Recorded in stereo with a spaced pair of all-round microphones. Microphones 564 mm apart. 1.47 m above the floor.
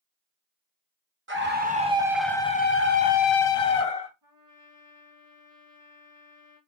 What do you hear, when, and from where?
1.3 s a scream: 20° right (ahead or behind), 1.0 m; by 4.1 s 90° left, 0.7 m
4.2 s a trumpet: 35° right (ahead or behind), 2.5 m